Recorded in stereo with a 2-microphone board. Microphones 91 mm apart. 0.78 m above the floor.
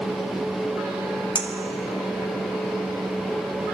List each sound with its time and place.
1.4 s a clink: 70° left (ahead or behind), 1.7 m